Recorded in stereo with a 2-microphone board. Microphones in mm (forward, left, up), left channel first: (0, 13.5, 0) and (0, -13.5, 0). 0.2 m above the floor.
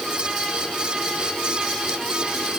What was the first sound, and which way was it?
Only background noise.